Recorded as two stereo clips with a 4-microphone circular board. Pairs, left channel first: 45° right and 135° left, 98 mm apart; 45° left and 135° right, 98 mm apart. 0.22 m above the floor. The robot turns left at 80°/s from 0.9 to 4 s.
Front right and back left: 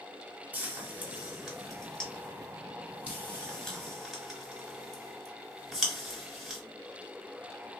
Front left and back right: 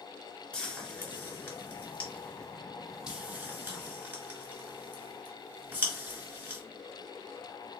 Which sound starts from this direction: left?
Frying, at 0.5 s.